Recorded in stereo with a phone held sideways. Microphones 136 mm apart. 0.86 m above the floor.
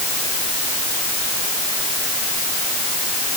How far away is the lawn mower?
No lawn mower in this recording.